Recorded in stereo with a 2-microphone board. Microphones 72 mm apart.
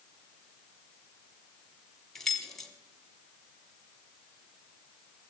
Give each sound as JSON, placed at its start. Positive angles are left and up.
{"t": 2.1, "sound": "keys jangling", "side_deg": 5, "distance_m": 1.0}